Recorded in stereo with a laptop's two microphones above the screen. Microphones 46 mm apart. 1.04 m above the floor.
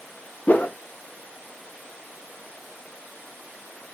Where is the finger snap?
No finger snap in this recording.